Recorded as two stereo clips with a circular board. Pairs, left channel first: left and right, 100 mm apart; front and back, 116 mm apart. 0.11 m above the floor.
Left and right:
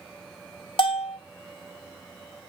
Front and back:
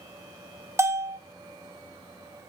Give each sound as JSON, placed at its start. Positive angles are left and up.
{"t": 0.8, "sound": "a bell", "azimuth_deg": 115, "distance_m": 0.5}